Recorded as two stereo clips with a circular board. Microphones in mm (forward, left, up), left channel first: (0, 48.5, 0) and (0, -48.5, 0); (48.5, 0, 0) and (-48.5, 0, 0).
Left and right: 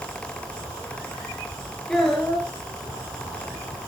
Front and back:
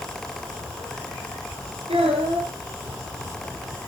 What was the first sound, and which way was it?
A child speaking, 165° left.